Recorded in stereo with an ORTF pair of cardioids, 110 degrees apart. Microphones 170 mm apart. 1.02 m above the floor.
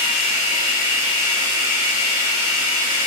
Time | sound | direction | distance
0.0 | running water | 60° left | 2.0 m